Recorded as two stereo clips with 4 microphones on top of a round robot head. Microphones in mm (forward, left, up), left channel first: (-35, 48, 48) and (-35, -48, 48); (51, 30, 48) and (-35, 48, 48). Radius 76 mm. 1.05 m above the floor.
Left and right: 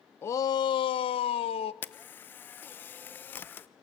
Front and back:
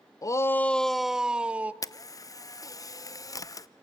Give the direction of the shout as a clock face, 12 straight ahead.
11 o'clock.